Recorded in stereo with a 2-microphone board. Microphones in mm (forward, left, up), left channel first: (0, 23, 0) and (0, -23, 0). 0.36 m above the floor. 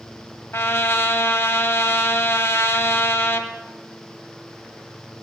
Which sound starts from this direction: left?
A trumpet, at 0.5 s.